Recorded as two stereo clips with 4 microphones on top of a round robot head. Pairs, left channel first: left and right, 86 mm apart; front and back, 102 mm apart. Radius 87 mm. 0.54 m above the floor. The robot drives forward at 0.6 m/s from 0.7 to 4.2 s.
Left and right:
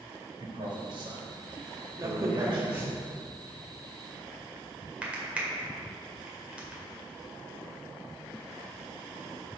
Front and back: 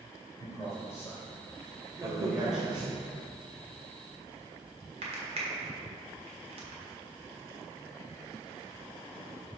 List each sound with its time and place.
0.4 s a man speaking: 65° right, 2.5 m; by 3.0 s 100° right, 2 m
2.0 s a crack: 130° right, 0.9 m; by 6.8 s 165° right, 1.9 m